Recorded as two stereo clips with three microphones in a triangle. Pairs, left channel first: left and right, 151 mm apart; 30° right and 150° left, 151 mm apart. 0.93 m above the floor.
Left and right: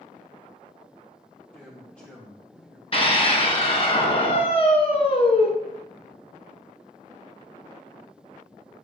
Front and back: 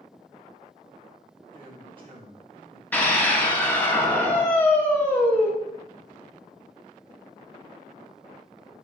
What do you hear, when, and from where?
1.5 s a man speaking: 165° left, 1.1 m
2.9 s a scream: 45° left, 0.8 m